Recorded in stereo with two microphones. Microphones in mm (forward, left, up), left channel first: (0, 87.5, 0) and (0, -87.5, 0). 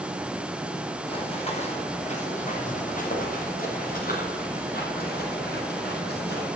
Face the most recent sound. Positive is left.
turn(degrees=70)  # may be behind; listen again after turning